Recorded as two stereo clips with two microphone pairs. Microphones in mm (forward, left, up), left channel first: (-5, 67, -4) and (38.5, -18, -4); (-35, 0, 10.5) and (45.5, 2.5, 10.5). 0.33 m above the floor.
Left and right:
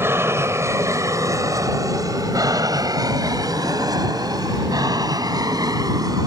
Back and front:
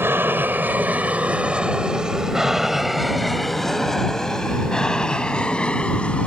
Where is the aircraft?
25° right; by 6.3 s 105° right.